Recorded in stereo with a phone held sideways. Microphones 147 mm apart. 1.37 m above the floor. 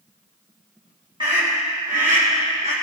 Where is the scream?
35° right (ahead or behind), 1.9 m; by 2.7 s 80° right, 1.6 m.